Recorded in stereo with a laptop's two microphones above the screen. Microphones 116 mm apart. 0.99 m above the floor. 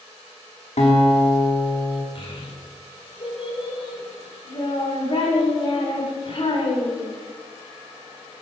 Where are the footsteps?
I don't hear footsteps.